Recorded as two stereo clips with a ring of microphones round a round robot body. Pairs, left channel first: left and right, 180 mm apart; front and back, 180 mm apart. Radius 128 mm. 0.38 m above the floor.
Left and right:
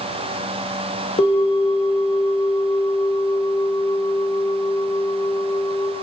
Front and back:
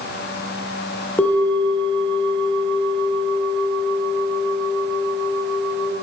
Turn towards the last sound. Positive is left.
turn(degrees=75)